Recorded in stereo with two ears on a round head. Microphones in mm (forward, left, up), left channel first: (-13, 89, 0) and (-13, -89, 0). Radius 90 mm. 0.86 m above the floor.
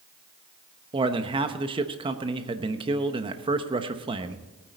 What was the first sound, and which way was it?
A man speaking, 25° right (ahead or behind).